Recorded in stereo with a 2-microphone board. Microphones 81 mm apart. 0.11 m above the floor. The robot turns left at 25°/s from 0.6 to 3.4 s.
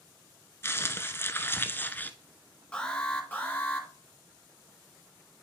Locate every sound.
0.6 s crumpling: 85° left, 0.7 m; by 2.1 s 45° left, 0.7 m
2.7 s an alarm: 10° left (ahead or behind), 2 m; by 3.9 s 20° left (ahead or behind), 2 m